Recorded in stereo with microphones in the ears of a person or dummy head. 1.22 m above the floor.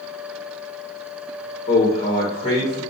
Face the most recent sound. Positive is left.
turn(degrees=35)  # may be behind; listen again after turning